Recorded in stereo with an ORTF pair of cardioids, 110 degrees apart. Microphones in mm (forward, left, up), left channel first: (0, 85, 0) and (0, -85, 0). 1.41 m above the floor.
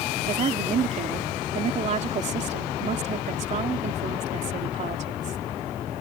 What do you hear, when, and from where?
0.3 s a woman speaking: 40° right